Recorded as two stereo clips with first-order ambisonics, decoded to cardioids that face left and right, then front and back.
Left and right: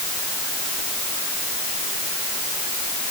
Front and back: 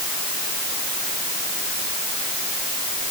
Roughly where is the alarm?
No alarm in this recording.